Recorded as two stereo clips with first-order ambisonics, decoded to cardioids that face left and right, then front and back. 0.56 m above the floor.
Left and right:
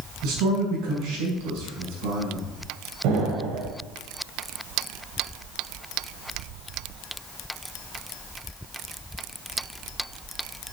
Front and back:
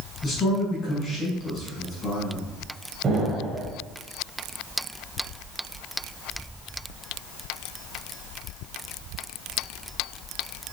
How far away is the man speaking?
About 6 m.